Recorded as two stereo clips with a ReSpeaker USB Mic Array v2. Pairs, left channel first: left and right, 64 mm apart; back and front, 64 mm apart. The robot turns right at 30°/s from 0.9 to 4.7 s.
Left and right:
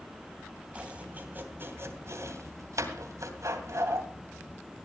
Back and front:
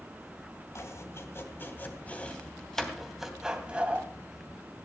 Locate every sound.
0.8 s chopping: 155° right, 2.5 m; by 4.1 s 60° right, 2.5 m